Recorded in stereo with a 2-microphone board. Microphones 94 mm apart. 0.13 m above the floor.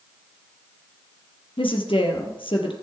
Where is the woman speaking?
65° left (ahead or behind), 3 m.